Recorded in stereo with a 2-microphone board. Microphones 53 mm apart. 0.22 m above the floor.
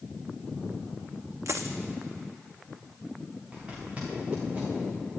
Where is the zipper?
25° right (ahead or behind), 6 m.